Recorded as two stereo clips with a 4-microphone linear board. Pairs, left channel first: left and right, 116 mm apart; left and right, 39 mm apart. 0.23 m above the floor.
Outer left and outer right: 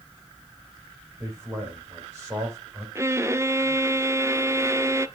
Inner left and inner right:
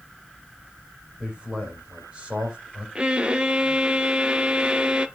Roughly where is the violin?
Right.